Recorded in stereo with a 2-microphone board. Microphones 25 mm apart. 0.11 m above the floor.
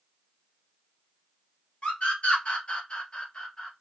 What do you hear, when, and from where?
1.8 s a scream: 50° left (ahead or behind), 1.9 m; by 3.7 s 35° left (ahead or behind), 2 m